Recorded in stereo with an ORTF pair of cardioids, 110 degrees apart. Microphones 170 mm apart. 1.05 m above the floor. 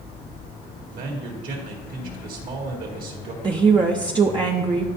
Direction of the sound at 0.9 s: 60° right.